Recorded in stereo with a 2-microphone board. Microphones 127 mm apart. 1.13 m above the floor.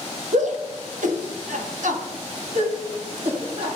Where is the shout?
70° right (ahead or behind), 1.6 m; by 3.8 s 50° right (ahead or behind), 2 m.